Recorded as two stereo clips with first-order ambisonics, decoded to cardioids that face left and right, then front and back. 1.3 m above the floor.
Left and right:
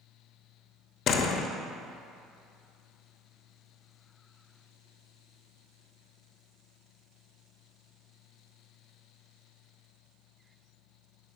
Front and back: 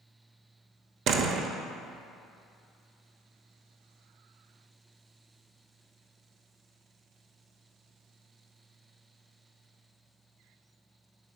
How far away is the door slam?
About 0.9 m.